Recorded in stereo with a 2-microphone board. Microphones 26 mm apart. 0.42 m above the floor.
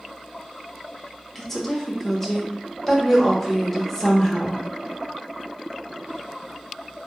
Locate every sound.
1.4 s a woman speaking: 15° left (ahead or behind), 0.8 m